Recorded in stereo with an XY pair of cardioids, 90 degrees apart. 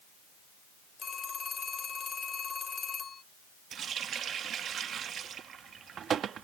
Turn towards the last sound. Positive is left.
turn(degrees=-65)